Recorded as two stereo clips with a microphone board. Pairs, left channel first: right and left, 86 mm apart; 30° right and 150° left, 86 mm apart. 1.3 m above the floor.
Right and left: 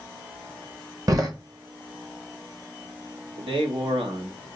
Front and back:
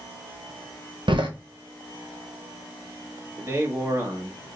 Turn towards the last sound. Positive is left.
turn(degrees=90)